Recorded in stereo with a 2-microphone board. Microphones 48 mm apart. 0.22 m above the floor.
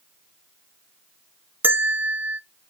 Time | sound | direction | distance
1.6 | a bell | 40° right (ahead or behind) | 0.6 m